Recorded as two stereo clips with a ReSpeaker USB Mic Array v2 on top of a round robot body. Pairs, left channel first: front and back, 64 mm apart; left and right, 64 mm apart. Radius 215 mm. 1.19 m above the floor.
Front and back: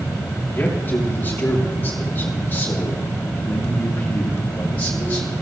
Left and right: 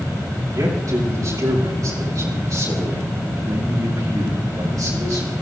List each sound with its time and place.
0.5 s a man speaking: 60° right, 7.5 m